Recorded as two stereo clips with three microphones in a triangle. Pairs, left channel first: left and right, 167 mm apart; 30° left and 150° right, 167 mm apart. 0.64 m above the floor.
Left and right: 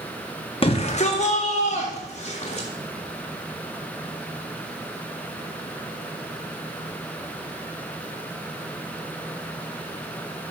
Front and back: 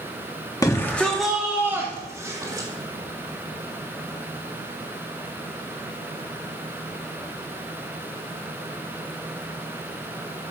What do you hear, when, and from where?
0.6 s a shout: 80° left, 0.6 m; by 2.7 s 140° left, 1.4 m